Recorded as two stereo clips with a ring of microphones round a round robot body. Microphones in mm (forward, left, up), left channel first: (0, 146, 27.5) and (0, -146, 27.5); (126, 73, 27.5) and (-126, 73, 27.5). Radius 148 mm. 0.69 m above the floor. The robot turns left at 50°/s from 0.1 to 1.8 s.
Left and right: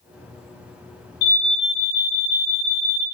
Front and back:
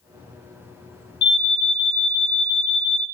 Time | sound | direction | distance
1.2 | an alarm | 40° left | 3.5 m